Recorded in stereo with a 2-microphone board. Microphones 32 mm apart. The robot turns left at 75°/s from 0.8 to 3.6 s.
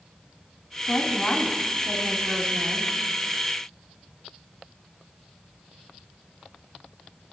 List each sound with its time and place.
0.9 s a woman speaking: 95° left, 2.5 m; by 2.9 s 60° right, 2.5 m